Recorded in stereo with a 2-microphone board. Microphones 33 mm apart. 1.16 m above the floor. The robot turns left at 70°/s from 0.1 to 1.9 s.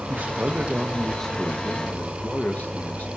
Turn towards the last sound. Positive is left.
turn(degrees=120)